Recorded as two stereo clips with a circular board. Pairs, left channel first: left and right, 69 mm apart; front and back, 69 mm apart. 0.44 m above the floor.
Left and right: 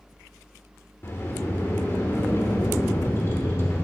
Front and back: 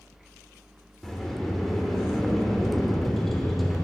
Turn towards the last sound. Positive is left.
turn(degrees=85)